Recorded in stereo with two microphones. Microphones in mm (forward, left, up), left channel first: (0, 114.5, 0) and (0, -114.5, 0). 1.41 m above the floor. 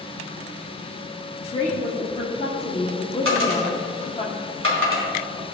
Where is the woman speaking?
30° left (ahead or behind), 1.2 m.